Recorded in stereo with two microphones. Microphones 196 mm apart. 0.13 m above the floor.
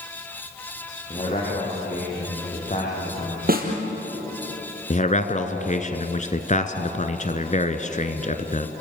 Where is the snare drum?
50° right (ahead or behind), 3.5 m.